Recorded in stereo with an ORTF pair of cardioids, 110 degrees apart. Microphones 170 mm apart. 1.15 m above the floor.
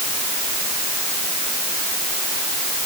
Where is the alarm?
I don't hear an alarm.